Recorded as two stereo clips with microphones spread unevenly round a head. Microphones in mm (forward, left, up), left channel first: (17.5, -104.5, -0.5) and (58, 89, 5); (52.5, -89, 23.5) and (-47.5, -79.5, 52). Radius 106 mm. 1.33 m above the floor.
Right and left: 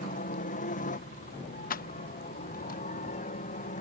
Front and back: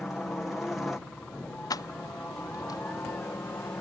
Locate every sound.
0.0 s a helicopter: 80° right; by 3.8 s 65° right
1.7 s keys jangling: 65° right